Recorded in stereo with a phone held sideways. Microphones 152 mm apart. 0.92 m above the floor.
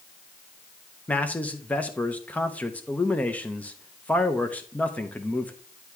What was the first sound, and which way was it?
A man speaking, 10° left (ahead or behind).